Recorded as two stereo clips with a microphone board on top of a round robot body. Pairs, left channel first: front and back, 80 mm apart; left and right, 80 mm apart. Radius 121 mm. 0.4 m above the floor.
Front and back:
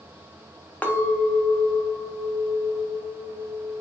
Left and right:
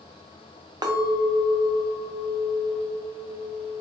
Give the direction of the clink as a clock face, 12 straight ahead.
2 o'clock.